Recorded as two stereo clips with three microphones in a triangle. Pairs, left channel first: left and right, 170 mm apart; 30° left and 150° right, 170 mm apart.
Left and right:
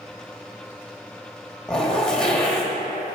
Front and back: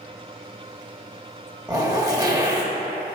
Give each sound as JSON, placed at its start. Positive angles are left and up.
{"t": 1.7, "sound": "a zipper", "azimuth_deg": 170, "distance_m": 0.9}